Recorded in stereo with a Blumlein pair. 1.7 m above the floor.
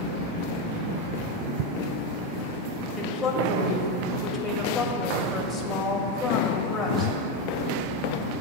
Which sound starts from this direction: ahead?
A woman speaking, at 3.0 s.